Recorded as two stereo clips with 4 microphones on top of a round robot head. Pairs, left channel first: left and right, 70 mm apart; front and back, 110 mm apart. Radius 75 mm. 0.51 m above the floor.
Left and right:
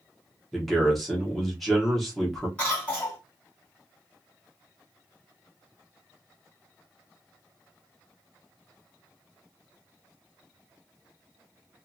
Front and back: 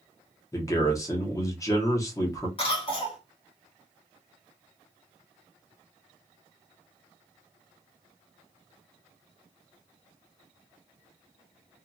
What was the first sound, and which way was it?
A man speaking, 5° left.